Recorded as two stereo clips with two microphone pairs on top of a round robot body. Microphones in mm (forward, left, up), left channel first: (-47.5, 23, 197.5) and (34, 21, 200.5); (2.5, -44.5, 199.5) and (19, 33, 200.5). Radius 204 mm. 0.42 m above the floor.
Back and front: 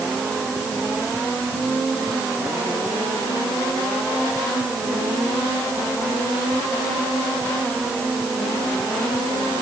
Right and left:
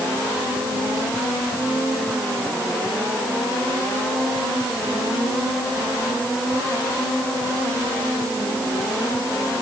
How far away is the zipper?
I don't hear a zipper.